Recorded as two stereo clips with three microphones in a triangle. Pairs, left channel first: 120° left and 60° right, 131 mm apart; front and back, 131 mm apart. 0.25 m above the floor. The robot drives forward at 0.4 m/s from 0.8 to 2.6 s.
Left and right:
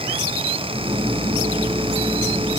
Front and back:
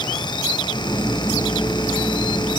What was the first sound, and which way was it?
Only background noise.